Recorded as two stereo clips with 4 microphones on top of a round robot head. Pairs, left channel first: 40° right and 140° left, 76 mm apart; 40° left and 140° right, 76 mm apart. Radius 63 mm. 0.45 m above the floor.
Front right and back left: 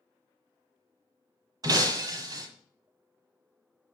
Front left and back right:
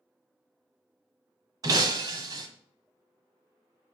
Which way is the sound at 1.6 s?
Straight behind.